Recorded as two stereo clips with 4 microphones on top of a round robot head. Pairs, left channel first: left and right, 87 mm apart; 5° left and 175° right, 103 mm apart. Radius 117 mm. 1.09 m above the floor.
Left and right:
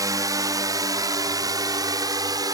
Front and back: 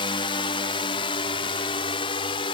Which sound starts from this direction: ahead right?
A drone, at 0.0 s.